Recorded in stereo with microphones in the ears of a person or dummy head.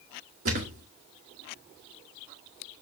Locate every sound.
0.5 s a thud: 50° right (ahead or behind), 1.6 m